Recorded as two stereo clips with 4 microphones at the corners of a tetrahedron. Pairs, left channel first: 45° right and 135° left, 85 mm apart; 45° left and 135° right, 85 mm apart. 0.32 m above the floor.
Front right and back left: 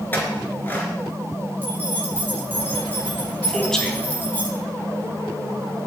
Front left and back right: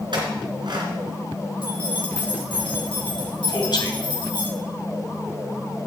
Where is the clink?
110° right, 3 m.